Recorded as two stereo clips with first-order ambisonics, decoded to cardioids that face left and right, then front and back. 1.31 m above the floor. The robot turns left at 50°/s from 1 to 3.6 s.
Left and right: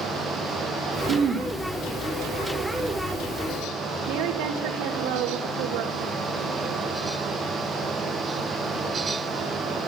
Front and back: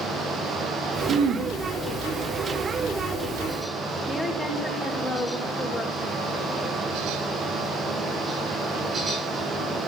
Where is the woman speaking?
85° right, 2 m.